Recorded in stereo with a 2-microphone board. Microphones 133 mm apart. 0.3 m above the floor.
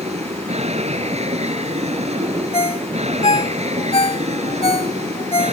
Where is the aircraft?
60° right (ahead or behind).